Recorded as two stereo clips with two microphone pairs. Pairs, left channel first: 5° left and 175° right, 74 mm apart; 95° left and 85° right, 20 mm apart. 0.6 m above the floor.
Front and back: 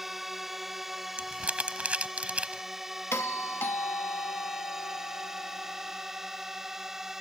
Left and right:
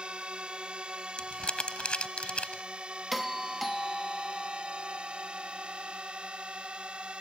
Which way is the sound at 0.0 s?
85° right.